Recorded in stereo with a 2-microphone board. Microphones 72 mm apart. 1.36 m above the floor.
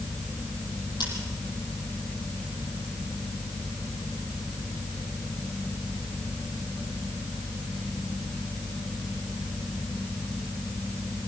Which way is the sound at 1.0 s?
80° left.